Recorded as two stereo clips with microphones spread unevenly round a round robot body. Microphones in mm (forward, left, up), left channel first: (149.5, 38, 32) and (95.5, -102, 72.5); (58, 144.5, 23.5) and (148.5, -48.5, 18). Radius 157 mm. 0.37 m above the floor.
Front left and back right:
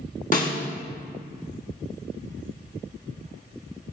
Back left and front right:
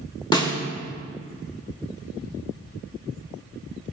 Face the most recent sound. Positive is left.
turn(degrees=45)